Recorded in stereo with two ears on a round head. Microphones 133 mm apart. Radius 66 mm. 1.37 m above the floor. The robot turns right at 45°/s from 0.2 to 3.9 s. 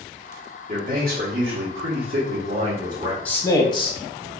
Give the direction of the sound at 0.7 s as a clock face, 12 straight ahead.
4 o'clock.